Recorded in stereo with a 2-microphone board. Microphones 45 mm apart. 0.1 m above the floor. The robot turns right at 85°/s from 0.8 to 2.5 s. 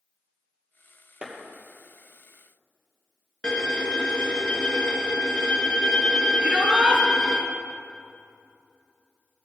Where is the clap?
30° right (ahead or behind), 2.5 m; by 1.3 s 20° right (ahead or behind), 2.5 m.